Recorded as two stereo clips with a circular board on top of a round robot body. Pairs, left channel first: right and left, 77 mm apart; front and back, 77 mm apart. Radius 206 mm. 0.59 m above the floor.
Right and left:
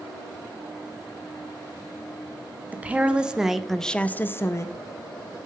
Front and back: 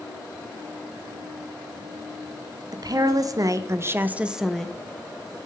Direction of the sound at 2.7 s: 160° left.